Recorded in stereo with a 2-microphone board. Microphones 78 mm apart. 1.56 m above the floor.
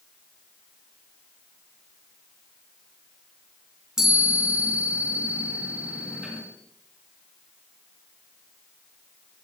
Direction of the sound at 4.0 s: 5° right (ahead or behind).